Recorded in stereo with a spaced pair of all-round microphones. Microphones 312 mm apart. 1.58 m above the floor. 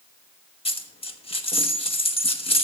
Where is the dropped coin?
20° left (ahead or behind), 0.9 m.